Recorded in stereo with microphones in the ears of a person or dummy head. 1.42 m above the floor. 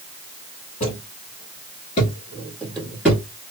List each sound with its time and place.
0.8 s footsteps: 40° left (ahead or behind), 1.8 m; by 3.2 s 5° right (ahead or behind), 1.4 m